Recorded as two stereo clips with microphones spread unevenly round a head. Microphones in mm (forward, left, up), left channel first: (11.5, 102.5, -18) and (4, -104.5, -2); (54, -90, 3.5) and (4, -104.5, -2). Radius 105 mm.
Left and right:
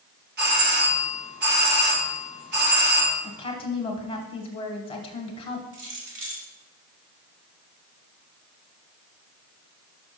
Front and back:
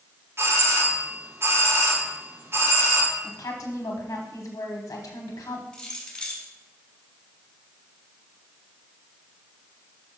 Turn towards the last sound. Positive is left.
turn(degrees=-60)